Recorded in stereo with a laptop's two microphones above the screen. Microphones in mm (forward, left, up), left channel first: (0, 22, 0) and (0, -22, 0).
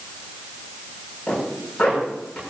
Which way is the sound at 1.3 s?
15° left (ahead or behind).